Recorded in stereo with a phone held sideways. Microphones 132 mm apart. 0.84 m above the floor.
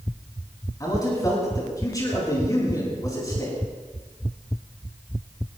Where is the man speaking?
25° left (ahead or behind), 7.5 m.